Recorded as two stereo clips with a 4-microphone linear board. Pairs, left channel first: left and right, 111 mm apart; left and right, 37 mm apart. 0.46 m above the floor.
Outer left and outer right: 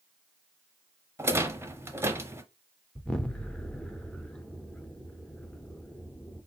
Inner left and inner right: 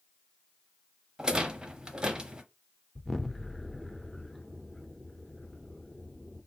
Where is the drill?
No drill in this recording.